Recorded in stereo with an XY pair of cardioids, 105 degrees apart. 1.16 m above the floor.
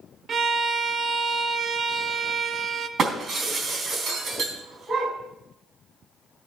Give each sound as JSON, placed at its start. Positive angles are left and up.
{"t": 0.3, "sound": "a violin", "azimuth_deg": -45, "distance_m": 0.8}
{"t": 3.0, "sound": "breaking glass", "azimuth_deg": -50, "distance_m": 3.5}